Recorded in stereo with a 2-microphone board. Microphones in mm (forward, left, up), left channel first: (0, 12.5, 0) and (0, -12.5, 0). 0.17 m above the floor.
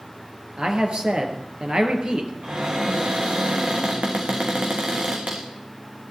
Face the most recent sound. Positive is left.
turn(degrees=-50)  # may be behind; listen again after turning